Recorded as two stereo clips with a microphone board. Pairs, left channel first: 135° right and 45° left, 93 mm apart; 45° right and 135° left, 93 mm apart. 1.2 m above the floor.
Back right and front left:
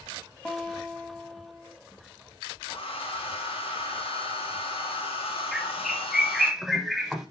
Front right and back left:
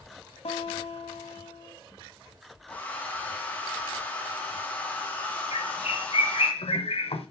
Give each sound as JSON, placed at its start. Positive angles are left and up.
{"t": 0.5, "sound": "a guitar", "azimuth_deg": -55, "distance_m": 1.7}
{"t": 2.7, "sound": "a hair dryer", "azimuth_deg": -120, "distance_m": 2.0}
{"t": 5.5, "sound": "a bird", "azimuth_deg": -45, "distance_m": 1.2}